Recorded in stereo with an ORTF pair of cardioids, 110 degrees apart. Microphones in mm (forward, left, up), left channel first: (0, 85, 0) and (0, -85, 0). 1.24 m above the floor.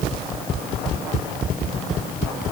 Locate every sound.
Only background noise.